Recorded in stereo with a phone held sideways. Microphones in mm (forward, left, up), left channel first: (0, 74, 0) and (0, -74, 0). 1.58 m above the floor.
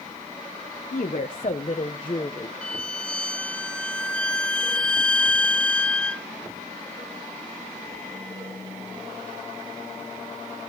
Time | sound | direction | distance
0.9 | a woman speaking | 65° left (ahead or behind) | 1.3 m
2.6 | a violin | 5° left (ahead or behind) | 0.5 m